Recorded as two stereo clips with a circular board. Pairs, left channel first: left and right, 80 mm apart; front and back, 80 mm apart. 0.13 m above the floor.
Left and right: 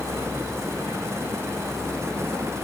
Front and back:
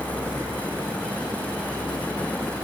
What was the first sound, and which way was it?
Only background noise.